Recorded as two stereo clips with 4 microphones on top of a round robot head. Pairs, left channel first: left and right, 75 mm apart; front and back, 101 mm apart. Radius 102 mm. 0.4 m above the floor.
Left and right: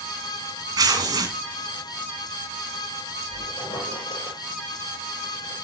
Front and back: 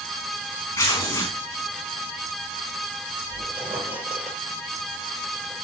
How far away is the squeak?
About 4.5 m.